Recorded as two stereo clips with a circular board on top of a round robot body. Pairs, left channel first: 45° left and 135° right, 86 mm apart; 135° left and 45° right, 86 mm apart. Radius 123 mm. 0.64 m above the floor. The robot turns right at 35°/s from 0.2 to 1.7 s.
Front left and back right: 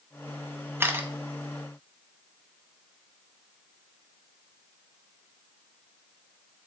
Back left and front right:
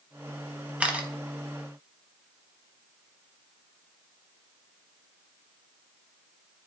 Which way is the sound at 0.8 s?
105° right.